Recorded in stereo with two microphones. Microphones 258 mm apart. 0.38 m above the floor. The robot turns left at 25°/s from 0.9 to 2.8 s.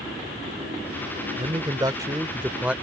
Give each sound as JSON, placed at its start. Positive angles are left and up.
{"t": 1.4, "sound": "a man speaking", "azimuth_deg": -135}